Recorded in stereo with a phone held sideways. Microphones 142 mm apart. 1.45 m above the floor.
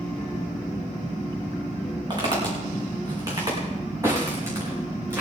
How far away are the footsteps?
About 5 m.